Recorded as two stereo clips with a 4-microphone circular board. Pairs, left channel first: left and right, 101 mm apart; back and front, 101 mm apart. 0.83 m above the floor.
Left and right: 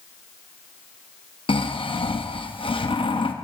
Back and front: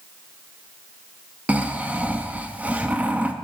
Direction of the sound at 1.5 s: 75° left.